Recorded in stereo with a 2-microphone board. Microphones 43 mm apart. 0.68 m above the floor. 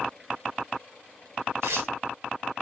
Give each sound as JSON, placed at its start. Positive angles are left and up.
{"t": 1.6, "sound": "tearing paper", "side_deg": -70, "distance_m": 1.5}